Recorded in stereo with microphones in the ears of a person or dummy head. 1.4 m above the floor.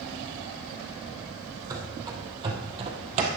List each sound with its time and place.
1.7 s running footsteps: 20° right (ahead or behind), 2.5 m; by 3.3 s 40° right (ahead or behind), 2 m